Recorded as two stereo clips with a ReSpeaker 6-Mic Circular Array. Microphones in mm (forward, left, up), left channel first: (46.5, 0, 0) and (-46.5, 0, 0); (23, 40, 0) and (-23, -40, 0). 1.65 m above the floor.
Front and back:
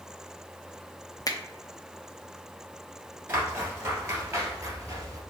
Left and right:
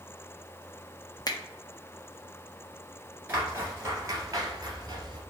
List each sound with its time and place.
1.3 s a finger snap: 35° left, 0.7 m
3.3 s footsteps: 165° right, 1.7 m; by 5.2 s 140° right, 2.5 m